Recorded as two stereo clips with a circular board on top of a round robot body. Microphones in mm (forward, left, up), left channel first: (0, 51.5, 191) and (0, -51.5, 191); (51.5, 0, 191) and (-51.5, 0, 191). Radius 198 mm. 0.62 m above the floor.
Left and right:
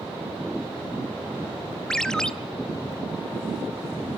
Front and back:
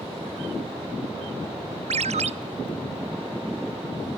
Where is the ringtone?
175° left, 1.0 m.